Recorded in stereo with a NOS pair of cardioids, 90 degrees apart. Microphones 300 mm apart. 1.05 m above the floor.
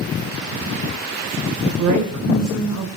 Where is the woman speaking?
65° right, 3.5 m.